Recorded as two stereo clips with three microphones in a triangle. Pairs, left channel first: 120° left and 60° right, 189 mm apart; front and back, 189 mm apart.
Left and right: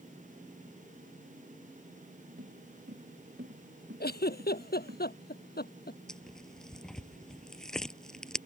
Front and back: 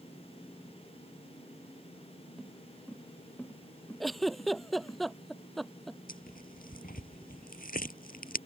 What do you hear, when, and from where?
2.4 s footsteps: 85° right; by 5.0 s 75° right
4.0 s a giggle: 90° left
6.1 s tearing paper: 35° left